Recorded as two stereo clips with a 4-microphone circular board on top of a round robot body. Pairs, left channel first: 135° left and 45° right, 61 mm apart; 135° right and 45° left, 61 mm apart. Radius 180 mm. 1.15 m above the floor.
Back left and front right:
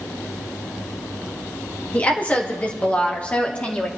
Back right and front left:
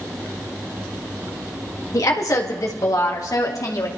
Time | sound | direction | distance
1.9 | a woman speaking | 160° right | 2.5 m